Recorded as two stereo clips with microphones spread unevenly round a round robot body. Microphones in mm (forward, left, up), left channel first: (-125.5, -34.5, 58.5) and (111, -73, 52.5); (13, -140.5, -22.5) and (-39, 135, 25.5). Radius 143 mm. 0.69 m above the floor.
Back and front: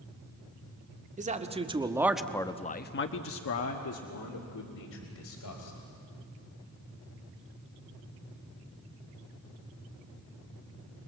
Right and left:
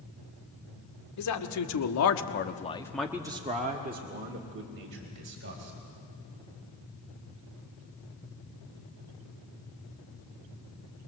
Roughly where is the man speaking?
Ahead right.